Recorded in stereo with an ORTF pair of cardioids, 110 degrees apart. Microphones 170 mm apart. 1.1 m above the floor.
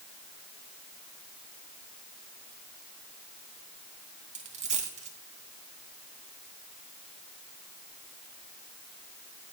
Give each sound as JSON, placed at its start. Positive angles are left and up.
{"t": 4.3, "sound": "a dropped coin", "azimuth_deg": -45, "distance_m": 2.5}